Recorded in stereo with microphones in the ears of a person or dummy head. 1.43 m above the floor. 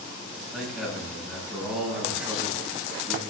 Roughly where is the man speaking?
Centre.